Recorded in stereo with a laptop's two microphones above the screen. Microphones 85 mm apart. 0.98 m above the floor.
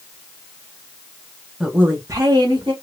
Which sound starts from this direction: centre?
A woman speaking, at 1.6 s.